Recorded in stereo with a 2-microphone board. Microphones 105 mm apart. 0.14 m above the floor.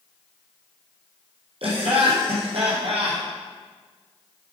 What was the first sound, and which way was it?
Laughter, 65° right (ahead or behind).